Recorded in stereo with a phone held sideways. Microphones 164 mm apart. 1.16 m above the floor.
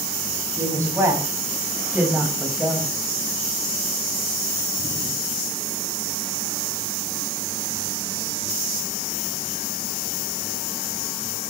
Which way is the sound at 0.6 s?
20° right (ahead or behind).